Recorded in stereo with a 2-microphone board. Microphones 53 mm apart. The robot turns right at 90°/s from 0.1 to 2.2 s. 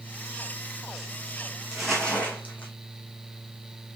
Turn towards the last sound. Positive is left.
turn(degrees=30)